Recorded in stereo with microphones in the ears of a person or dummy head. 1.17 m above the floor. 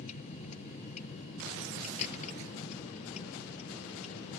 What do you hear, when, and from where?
0.0 s a vehicle: 45° left (ahead or behind); by 4.4 s 40° left (ahead or behind)